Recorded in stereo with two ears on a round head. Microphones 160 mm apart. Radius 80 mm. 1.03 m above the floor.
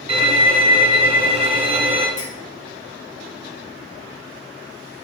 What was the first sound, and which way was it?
A violin, 40° right (ahead or behind).